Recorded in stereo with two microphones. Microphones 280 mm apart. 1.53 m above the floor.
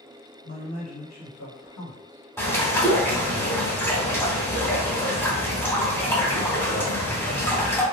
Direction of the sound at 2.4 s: 10° left (ahead or behind).